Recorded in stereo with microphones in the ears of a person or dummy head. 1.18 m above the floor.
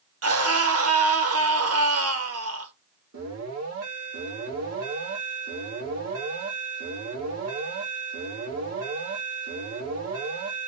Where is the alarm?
75° right (ahead or behind), 1.9 m.